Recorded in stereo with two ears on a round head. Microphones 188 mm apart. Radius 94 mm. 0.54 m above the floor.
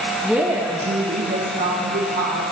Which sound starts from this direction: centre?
A woman speaking, at 0.2 s.